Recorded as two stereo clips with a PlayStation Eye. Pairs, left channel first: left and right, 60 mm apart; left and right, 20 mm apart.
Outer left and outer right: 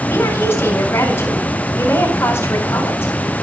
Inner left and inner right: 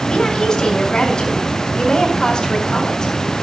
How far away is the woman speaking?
About 4.5 m.